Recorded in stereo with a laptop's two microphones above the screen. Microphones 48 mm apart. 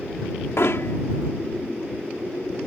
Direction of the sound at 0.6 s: 65° left (ahead or behind).